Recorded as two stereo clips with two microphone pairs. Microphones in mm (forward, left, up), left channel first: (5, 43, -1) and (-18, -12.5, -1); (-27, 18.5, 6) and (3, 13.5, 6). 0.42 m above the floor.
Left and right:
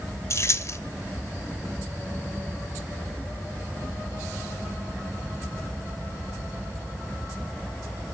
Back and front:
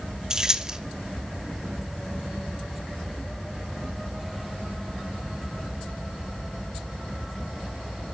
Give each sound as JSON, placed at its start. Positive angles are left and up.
{"t": 0.3, "sound": "keys jangling", "azimuth_deg": 50, "distance_m": 1.2}